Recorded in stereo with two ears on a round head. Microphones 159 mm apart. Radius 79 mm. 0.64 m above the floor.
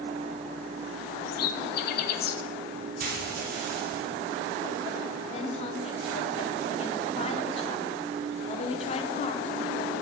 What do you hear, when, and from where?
1.3 s a bird: 60° left (ahead or behind), 1.0 m
3.0 s frying: 60° right (ahead or behind), 2 m
5.3 s a woman speaking: 35° left (ahead or behind), 1.3 m